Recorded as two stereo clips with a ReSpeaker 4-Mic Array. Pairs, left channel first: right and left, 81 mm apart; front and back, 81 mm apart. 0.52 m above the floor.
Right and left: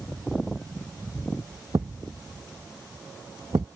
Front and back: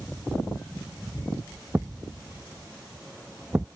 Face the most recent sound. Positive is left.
turn(degrees=115)